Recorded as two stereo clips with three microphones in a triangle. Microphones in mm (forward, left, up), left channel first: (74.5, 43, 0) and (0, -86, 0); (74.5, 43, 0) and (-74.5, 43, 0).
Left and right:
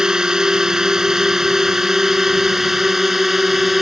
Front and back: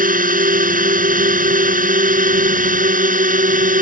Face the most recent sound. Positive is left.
turn(degrees=150)